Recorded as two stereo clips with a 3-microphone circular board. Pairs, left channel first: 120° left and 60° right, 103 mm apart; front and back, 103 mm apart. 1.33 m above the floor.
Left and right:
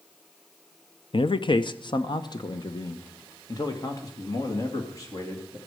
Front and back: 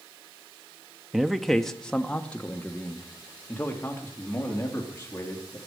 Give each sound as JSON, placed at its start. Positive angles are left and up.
{"t": 1.1, "sound": "a man speaking", "azimuth_deg": 95, "distance_m": 0.7}